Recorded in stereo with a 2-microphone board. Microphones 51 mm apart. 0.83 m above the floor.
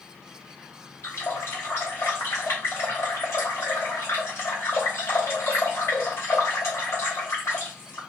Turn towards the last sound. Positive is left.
turn(degrees=70)  # may be behind; listen again after turning